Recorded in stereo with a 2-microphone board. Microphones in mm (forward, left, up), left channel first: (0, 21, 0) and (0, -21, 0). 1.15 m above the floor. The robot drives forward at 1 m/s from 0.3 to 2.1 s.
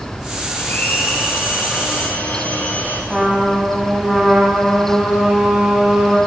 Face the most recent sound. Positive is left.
turn(degrees=-10)  # may be behind; listen again after turning